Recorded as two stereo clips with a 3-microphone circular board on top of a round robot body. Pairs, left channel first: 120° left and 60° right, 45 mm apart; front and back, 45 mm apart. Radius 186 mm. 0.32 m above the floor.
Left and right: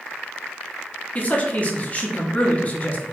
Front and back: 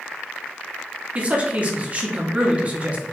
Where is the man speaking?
150° left, 1.0 m.